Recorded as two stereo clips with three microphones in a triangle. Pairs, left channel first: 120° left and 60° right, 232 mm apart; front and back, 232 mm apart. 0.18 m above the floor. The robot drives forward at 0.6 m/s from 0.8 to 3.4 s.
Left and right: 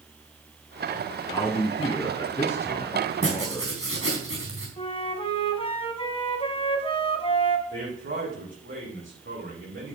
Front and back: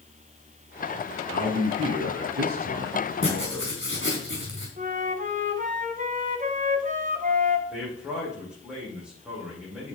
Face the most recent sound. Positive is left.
turn(degrees=-95)